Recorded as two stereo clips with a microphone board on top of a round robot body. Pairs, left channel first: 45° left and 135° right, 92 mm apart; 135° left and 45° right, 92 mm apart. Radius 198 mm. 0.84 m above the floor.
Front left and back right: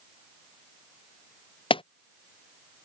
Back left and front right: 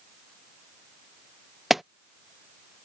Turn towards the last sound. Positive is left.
turn(degrees=45)